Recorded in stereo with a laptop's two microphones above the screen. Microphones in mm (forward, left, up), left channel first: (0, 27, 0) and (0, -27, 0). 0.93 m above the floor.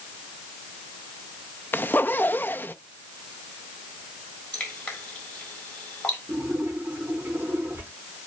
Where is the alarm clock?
No alarm clock in this recording.